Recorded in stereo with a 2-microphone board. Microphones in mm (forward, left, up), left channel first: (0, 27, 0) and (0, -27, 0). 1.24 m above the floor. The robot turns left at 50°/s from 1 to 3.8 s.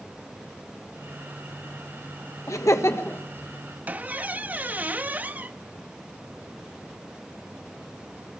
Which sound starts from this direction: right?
A squeak, at 3.9 s.